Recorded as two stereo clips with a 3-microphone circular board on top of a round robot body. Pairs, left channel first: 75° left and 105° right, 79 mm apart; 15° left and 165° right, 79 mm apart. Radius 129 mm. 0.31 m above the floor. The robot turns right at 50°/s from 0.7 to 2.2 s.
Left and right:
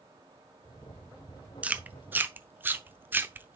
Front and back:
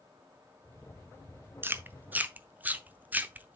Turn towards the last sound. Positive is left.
turn(degrees=-130)